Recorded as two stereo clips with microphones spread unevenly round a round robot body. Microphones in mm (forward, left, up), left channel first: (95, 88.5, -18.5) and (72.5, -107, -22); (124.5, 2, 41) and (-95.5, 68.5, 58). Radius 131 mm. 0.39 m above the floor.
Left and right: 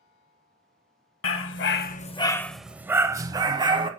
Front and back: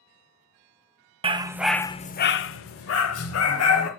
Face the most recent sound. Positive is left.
turn(degrees=-30)